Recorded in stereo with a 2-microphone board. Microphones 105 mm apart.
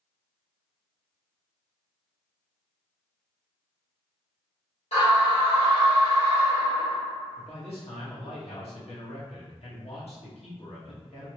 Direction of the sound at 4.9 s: 75° left (ahead or behind).